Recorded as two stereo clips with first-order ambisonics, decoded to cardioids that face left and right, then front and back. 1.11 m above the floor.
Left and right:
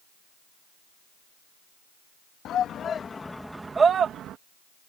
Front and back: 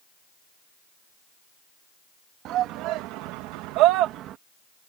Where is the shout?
140° left; by 4.4 s 135° right.